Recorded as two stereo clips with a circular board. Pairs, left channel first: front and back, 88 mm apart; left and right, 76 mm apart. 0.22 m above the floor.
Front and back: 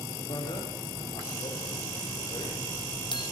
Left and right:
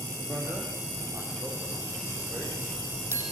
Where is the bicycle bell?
30° right, 6.5 m.